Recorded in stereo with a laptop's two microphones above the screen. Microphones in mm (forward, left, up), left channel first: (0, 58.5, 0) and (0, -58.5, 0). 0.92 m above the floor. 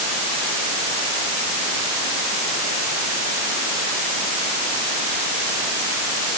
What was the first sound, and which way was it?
Only background noise.